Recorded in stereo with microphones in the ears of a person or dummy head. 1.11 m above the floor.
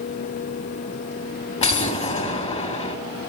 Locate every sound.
1.6 s an explosion: 30° left (ahead or behind), 2 m